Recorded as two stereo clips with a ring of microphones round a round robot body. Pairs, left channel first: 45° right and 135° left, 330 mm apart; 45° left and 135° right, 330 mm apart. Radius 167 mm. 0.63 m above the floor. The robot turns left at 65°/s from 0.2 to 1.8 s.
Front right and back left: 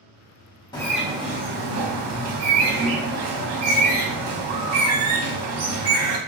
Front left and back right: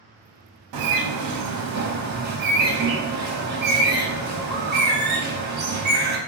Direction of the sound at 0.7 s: 120° right.